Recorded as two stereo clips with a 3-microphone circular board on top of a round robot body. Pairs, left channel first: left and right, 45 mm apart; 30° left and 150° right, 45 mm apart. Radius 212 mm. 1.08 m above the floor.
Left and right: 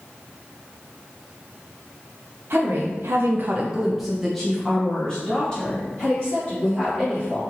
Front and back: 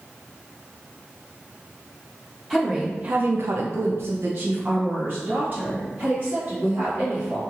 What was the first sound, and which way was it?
A woman speaking, 65° right.